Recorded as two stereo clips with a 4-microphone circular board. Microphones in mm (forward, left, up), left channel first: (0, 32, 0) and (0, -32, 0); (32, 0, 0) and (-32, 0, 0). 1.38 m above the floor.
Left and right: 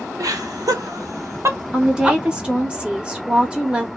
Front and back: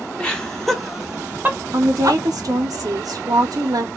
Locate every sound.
0.2 s laughter: 75° right, 1.1 m; by 2.2 s 165° right, 0.9 m
1.7 s a woman speaking: 165° right, 0.6 m